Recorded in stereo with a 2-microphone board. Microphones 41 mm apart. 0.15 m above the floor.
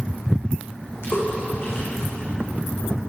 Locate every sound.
1.0 s a splash: 80° left, 7.5 m